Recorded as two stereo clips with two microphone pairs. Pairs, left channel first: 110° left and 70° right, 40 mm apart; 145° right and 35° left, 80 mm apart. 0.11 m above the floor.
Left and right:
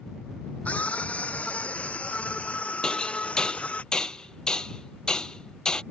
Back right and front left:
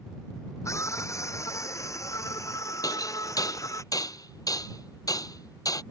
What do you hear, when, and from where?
0.7 s a scream: 165° left
2.8 s hammering: straight behind